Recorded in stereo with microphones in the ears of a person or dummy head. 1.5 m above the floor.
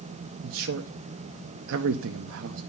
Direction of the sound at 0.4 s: 70° right (ahead or behind).